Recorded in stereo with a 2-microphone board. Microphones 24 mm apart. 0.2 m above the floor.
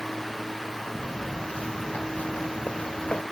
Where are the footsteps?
60° left (ahead or behind); by 3.2 s 75° left (ahead or behind).